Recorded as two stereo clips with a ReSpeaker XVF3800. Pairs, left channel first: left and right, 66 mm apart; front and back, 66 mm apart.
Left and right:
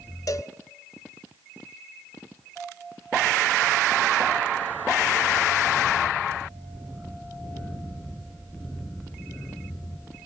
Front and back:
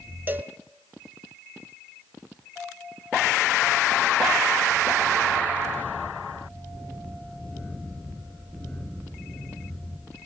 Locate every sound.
0.3 s a cowbell: 120° left, 0.7 m